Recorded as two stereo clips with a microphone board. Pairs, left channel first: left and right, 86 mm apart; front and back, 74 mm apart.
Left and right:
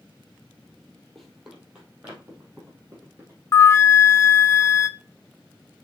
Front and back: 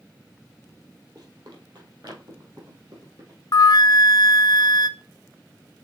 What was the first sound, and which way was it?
Running footsteps, 175° left.